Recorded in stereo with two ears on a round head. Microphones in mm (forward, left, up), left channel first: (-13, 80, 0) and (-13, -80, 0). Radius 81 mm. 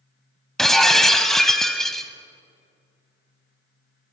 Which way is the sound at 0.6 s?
Centre (ahead or behind).